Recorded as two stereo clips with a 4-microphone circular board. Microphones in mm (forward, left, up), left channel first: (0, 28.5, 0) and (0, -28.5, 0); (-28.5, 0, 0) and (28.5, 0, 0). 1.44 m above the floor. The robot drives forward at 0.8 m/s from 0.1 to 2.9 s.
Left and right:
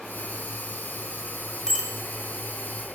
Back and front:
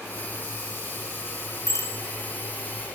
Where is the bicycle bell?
170° left, 2 m.